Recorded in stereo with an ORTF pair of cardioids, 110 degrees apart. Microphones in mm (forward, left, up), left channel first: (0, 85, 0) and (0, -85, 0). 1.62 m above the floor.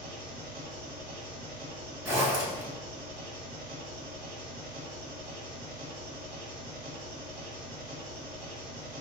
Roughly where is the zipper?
Ahead.